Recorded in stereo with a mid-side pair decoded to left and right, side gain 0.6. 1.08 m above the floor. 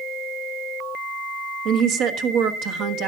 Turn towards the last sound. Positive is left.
turn(degrees=-70)